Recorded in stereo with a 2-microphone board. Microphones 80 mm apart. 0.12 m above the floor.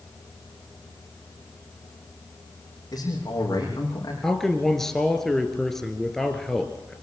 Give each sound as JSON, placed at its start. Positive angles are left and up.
{"t": 2.9, "sound": "a man speaking", "side_deg": 50, "distance_m": 6.5}
{"t": 4.2, "sound": "a man speaking", "side_deg": 5, "distance_m": 2.0}